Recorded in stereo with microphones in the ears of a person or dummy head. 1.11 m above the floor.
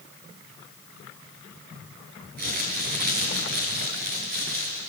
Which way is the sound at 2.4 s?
45° right (ahead or behind).